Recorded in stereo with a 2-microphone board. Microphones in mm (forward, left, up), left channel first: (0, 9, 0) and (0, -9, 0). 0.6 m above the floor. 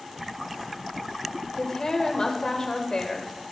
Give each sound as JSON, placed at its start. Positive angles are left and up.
{"t": 1.6, "sound": "a woman speaking", "side_deg": 45, "distance_m": 2.0}